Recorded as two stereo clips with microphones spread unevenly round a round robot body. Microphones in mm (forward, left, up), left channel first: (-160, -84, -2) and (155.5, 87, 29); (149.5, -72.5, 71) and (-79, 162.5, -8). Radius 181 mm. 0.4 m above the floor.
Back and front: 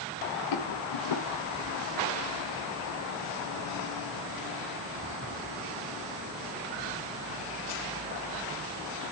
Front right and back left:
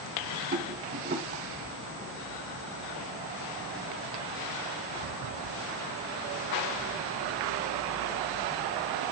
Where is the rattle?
175° right, 1.1 m.